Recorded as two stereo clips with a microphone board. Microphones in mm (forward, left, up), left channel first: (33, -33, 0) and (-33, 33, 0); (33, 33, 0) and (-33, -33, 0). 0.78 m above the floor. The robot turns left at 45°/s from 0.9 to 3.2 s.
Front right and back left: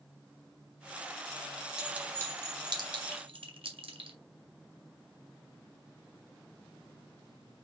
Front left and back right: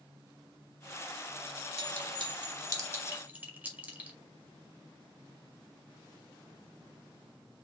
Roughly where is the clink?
Behind right.